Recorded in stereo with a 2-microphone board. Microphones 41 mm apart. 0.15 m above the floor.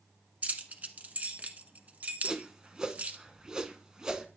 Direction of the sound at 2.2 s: 20° right (ahead or behind).